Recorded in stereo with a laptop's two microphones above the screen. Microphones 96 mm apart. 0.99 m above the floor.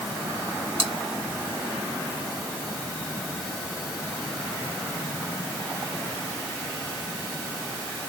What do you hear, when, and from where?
0.8 s chewing: 70° right (ahead or behind), 2.5 m